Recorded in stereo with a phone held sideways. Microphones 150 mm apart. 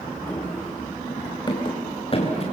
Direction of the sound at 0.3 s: 10° left (ahead or behind).